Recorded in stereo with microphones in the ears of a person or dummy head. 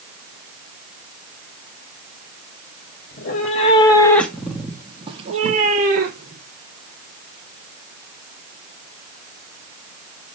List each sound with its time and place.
3.1 s a cat meowing: 50° left (ahead or behind), 1.9 m; by 6.4 s 50° right (ahead or behind), 3 m